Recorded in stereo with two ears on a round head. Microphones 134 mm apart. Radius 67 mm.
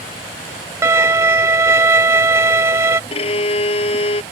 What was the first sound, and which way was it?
A violin, 20° right (ahead or behind).